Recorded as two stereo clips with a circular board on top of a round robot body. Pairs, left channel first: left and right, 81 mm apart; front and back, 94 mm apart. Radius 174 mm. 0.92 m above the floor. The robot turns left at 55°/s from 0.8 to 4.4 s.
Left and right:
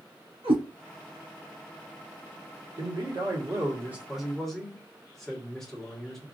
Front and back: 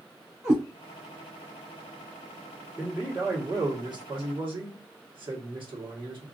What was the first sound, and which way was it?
A cat meowing, 105° right.